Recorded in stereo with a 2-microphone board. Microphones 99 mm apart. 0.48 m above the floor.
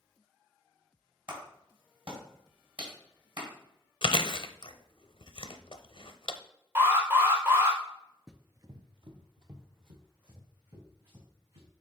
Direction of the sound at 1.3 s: 60° right (ahead or behind).